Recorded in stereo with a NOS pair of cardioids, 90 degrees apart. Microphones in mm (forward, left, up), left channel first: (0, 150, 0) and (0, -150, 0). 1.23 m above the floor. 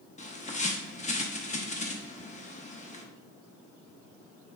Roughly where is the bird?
Ahead left.